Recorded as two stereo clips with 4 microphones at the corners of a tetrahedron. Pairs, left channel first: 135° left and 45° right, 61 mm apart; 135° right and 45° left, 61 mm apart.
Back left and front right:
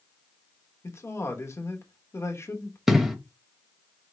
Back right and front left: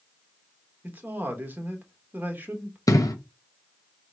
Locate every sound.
0.8 s a man speaking: 100° left, 1.1 m
2.9 s an explosion: 125° right, 0.8 m